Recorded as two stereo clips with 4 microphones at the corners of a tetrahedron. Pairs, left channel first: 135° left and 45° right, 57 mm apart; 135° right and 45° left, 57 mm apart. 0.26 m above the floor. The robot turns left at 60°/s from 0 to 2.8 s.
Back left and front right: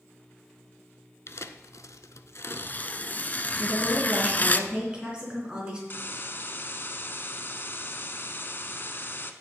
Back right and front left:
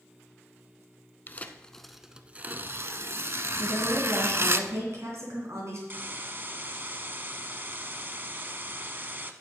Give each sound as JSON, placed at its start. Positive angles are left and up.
{"t": 1.3, "sound": "tearing paper", "azimuth_deg": 175, "distance_m": 0.5}
{"t": 3.6, "sound": "a woman speaking", "azimuth_deg": 25, "distance_m": 3.0}
{"t": 5.9, "sound": "a hiss", "azimuth_deg": 95, "distance_m": 0.7}